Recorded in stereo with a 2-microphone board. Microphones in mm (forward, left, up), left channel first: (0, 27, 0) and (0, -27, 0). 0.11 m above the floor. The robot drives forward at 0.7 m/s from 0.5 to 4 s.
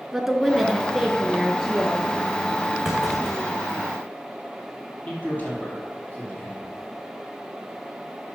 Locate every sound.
0.1 s a woman speaking: 5° right (ahead or behind), 1.1 m
2.9 s a clunk: centre (ahead or behind), 2.5 m
5.1 s a man speaking: 30° left (ahead or behind), 3.5 m